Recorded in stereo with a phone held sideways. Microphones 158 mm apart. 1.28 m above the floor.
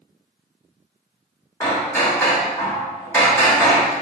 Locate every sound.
1.6 s hammering: 15° left (ahead or behind), 0.8 m